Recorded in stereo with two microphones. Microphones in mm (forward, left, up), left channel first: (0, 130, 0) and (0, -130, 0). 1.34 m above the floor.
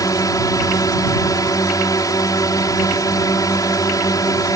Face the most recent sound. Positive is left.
turn(degrees=15)  # may be behind; listen again after turning